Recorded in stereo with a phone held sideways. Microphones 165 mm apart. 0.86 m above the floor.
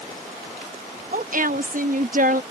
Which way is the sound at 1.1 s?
55° right (ahead or behind).